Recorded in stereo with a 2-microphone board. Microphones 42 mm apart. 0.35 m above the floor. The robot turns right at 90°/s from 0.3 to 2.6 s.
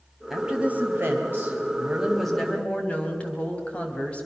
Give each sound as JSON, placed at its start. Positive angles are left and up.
{"t": 0.3, "sound": "a woman speaking", "azimuth_deg": -170, "distance_m": 2.0}